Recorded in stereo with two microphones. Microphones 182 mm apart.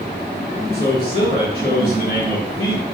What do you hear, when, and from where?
0.7 s a man speaking: 50° left (ahead or behind), 3.5 m